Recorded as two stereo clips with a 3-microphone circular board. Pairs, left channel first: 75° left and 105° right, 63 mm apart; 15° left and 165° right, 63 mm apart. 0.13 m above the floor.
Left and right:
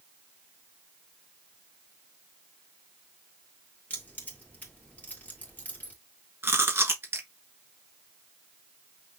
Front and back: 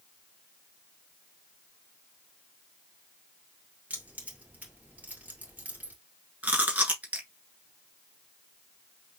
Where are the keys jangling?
135° left, 2 m.